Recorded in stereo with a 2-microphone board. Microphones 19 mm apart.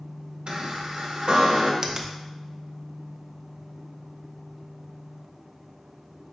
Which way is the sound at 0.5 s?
70° right (ahead or behind).